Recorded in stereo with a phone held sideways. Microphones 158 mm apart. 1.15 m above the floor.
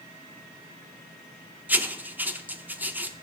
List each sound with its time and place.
1.7 s writing: 10° right (ahead or behind), 0.7 m